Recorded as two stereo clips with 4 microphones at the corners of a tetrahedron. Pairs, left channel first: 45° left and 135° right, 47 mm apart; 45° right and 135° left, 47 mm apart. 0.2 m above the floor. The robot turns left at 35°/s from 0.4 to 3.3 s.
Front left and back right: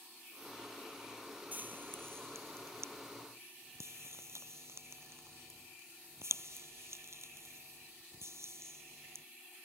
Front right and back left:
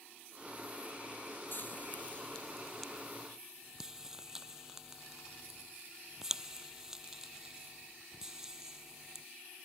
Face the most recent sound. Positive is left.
turn(degrees=-145)